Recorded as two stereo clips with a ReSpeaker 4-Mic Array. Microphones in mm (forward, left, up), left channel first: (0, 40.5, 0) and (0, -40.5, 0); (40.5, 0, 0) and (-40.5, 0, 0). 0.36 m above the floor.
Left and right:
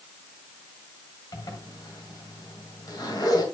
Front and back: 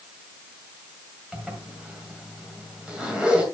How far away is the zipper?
About 2 m.